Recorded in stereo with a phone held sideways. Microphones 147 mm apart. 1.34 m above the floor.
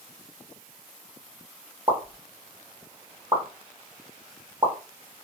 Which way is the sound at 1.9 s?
30° right (ahead or behind).